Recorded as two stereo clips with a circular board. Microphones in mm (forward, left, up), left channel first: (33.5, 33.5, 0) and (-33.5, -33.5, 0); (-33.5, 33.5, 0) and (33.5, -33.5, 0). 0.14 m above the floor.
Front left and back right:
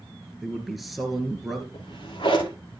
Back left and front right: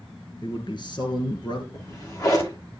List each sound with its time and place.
0.4 s a man speaking: 135° left, 1.9 m
1.7 s a drawer: 80° left, 6 m